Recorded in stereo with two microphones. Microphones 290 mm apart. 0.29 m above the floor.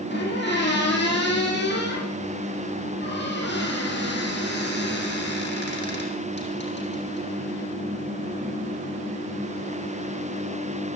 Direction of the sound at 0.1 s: 35° left (ahead or behind).